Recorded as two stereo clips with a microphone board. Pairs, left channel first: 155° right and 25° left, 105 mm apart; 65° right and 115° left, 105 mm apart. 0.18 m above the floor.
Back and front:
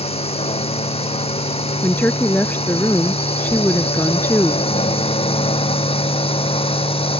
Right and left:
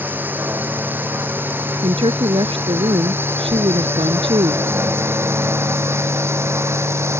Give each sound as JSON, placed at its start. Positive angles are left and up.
{"t": 0.0, "sound": "a drone", "azimuth_deg": -175}
{"t": 1.8, "sound": "a woman speaking", "azimuth_deg": 130}